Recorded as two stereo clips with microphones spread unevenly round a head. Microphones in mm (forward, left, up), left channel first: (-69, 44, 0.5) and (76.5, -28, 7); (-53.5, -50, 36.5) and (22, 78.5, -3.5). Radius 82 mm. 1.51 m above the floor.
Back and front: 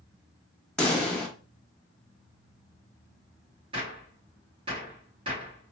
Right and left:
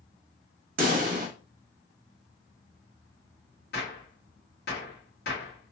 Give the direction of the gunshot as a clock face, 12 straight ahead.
3 o'clock.